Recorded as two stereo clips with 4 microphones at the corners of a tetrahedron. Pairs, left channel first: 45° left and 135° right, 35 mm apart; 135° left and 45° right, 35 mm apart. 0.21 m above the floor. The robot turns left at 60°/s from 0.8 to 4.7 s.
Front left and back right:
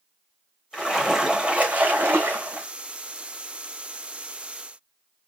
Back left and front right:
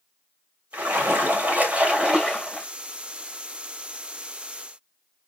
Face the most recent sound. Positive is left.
turn(degrees=90)